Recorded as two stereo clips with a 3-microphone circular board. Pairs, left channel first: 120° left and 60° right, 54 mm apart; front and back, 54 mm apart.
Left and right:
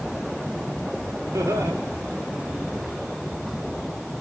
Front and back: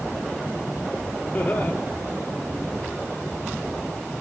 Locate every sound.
1.3 s laughter: 60° right, 4.5 m